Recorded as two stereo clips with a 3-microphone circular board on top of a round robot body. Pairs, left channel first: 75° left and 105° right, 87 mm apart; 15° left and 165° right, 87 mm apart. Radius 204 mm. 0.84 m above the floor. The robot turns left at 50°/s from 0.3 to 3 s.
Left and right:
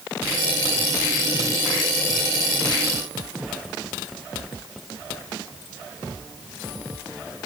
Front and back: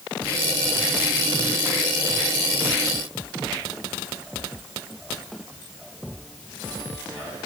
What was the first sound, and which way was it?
Only background noise.